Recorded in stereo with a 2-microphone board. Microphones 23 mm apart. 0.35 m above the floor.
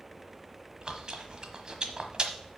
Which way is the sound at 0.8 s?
35° right (ahead or behind).